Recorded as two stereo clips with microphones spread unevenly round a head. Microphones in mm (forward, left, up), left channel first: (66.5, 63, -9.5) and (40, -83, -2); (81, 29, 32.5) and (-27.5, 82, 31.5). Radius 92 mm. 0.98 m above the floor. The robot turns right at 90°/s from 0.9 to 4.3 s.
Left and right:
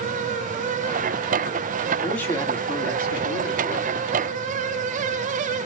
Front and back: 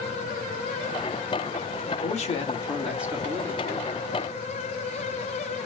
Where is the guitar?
I don't hear a guitar.